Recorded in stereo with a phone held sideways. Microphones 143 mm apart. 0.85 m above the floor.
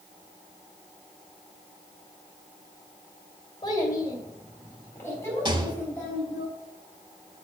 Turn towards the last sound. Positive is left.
turn(degrees=-35)  # may be behind; listen again after turning